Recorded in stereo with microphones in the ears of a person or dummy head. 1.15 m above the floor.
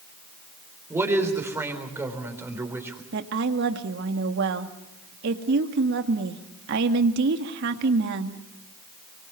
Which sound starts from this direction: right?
A woman speaking, at 3.1 s.